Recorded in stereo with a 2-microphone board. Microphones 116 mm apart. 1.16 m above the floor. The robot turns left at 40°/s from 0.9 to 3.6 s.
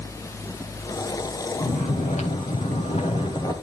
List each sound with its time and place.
1.6 s snoring: 110° left, 3 m; by 3.5 s 30° left, 3 m